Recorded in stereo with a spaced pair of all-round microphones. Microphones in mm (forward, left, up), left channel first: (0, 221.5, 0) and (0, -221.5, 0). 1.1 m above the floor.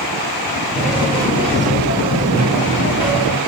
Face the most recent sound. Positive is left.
turn(degrees=-55)  # may be behind; listen again after turning